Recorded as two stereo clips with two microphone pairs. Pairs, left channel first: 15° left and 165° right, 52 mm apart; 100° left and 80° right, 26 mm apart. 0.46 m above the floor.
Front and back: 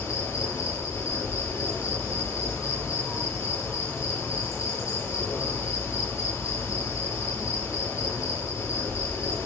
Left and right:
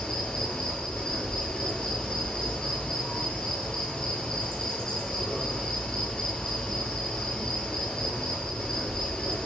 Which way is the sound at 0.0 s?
35° left.